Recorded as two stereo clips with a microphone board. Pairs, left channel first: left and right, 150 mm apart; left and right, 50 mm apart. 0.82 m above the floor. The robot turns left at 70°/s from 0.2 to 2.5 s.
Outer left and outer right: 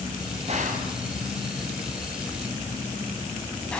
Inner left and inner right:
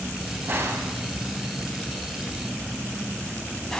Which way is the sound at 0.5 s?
45° right (ahead or behind).